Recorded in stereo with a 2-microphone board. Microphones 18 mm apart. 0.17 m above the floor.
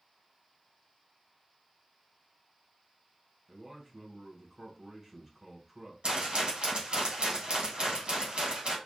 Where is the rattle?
65° right (ahead or behind), 3 m.